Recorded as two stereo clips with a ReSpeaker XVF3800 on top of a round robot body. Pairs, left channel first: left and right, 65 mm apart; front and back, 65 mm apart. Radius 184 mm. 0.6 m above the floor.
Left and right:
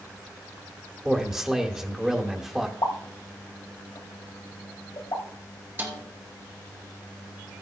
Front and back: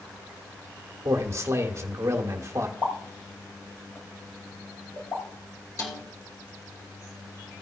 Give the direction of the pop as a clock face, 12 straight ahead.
10 o'clock.